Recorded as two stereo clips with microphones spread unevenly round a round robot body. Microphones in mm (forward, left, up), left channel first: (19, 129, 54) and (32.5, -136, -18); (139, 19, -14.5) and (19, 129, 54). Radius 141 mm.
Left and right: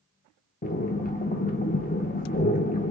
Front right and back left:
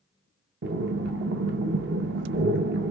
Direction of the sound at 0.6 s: 160° left.